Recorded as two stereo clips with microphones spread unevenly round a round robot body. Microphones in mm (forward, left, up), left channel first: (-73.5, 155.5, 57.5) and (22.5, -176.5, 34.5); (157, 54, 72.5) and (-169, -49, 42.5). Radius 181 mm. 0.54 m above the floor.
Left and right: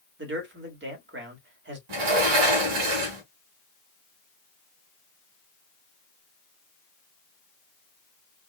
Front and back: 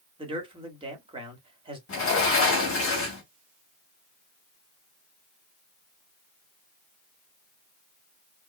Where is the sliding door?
40° right, 2.5 m.